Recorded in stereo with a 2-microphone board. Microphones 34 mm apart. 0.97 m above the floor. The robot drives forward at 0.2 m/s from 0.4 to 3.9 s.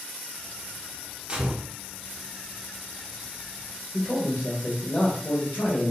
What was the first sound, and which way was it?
A gunshot, 30° right (ahead or behind).